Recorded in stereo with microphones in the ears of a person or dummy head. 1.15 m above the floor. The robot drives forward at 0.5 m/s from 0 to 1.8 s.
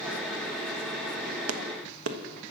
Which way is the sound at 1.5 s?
80° right.